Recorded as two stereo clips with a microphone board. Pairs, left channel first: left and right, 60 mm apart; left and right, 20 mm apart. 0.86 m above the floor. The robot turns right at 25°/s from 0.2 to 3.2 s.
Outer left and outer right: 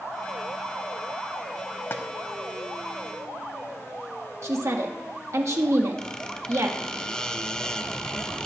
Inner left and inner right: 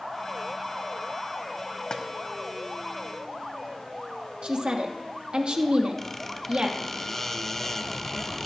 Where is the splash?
40° left (ahead or behind), 0.9 m; by 2.0 s 45° left (ahead or behind), 0.9 m.